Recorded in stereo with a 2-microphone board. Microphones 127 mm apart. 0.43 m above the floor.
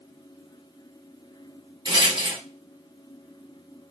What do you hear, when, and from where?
1.9 s a rattle: 40° right (ahead or behind), 0.9 m